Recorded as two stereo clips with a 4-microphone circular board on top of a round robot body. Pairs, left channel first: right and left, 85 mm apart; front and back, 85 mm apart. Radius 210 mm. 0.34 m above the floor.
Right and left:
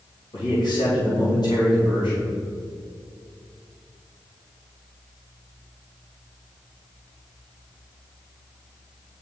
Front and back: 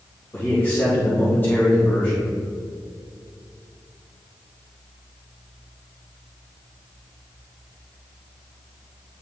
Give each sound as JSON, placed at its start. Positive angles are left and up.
{"t": 0.3, "sound": "a man speaking", "azimuth_deg": -65, "distance_m": 2.5}